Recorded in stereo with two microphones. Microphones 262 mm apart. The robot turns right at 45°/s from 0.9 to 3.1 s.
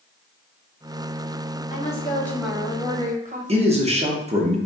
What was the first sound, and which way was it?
A woman speaking, 150° left.